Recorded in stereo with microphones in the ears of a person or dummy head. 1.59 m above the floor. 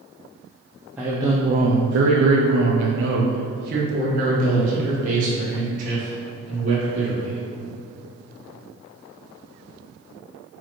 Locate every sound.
1.0 s a man speaking: 5° right (ahead or behind), 0.9 m; by 7.4 s 40° right (ahead or behind), 4 m